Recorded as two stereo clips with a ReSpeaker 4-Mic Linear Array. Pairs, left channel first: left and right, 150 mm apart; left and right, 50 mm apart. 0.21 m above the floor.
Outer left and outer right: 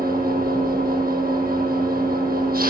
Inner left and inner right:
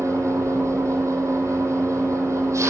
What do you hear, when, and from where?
0.0 s an engine running: 80° right, 7 m